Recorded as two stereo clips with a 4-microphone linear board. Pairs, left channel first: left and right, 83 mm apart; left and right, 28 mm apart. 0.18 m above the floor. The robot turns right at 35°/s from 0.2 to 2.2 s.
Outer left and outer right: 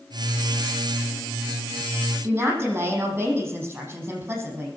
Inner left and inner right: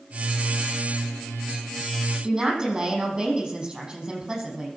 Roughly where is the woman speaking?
Right.